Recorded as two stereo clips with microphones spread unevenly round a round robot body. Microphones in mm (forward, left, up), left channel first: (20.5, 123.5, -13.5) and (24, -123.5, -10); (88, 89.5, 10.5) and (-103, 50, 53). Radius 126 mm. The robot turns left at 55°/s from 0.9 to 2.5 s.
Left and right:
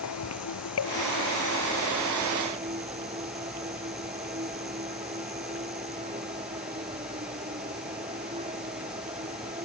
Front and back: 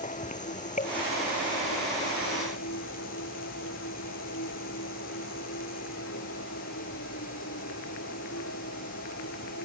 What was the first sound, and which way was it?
An insect, 65° left.